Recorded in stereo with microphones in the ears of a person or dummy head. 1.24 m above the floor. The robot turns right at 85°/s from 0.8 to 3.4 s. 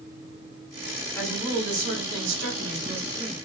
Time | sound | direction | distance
1.1 | a woman speaking | 165° left | 3.5 m